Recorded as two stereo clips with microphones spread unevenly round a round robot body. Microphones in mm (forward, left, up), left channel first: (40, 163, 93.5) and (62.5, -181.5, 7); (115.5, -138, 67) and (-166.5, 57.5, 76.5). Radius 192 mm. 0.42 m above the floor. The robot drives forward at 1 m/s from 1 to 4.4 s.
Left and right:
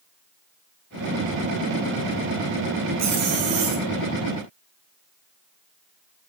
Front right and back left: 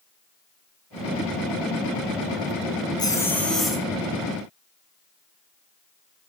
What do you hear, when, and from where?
3.0 s a zipper: 110° right, 3 m; by 3.9 s 125° right, 3 m